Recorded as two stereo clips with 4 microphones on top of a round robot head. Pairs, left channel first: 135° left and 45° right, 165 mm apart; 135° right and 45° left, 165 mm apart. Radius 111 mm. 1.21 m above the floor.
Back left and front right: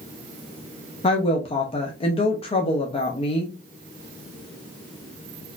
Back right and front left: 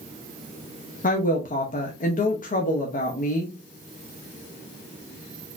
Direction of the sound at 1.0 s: 170° right.